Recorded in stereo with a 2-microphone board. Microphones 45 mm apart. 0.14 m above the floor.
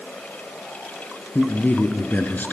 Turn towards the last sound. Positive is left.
turn(degrees=45)  # may be behind; listen again after turning